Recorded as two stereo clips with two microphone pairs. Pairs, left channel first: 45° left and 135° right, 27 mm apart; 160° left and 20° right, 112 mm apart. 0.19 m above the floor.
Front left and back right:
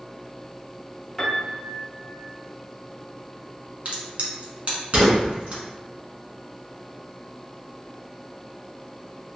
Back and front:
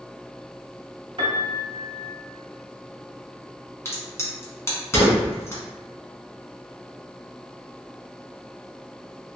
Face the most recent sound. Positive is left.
turn(degrees=-145)